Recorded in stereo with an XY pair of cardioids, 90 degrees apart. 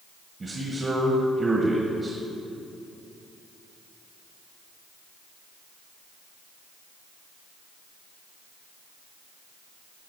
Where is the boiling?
I don't hear boiling.